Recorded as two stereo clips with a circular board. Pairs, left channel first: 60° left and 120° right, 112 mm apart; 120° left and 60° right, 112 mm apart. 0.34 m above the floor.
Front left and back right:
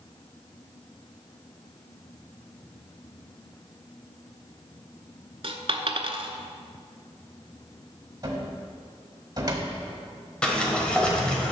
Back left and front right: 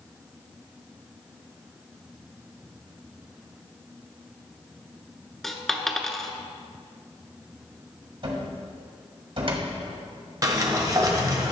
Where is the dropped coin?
150° right, 0.6 m.